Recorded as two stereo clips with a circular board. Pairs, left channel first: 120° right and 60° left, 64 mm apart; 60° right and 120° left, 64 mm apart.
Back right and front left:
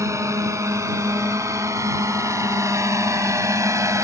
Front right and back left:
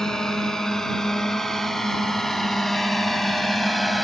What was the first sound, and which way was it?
A drone, 25° left.